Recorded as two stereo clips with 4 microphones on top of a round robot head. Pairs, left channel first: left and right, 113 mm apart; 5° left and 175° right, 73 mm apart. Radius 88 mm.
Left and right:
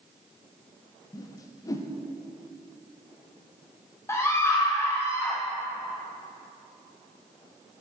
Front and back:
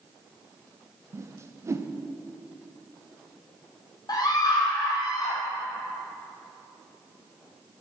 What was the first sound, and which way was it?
A whoosh, 145° left.